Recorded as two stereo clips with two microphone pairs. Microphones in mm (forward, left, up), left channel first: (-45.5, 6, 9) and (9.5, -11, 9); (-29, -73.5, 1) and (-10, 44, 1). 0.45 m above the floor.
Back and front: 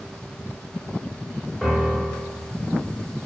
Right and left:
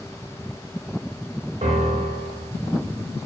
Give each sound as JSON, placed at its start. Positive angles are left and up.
{"t": 1.6, "sound": "a piano", "azimuth_deg": 80, "distance_m": 1.2}